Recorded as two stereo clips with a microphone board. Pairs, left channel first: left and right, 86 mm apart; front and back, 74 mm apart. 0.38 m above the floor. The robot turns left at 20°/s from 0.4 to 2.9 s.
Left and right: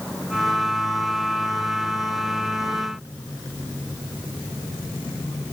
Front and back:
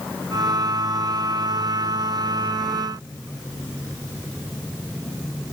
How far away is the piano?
I don't hear a piano.